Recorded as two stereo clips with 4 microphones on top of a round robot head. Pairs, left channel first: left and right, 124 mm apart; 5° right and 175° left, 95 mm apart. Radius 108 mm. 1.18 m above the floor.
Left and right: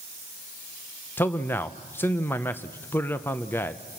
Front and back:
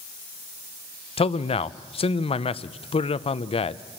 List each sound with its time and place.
1.2 s a man speaking: 15° left, 0.7 m